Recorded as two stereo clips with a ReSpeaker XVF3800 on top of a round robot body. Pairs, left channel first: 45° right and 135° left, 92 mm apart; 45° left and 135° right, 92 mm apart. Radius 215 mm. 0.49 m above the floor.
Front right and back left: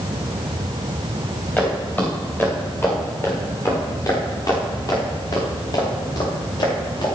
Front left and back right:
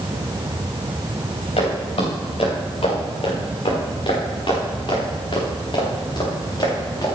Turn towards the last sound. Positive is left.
turn(degrees=-5)